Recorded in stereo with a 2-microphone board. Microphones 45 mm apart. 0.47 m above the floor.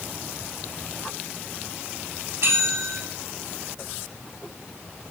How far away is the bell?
About 4 m.